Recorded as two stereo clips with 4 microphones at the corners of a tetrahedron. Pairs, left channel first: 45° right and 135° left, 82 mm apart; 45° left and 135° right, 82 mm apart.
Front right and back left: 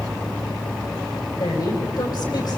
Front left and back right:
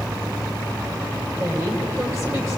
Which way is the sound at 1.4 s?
80° right.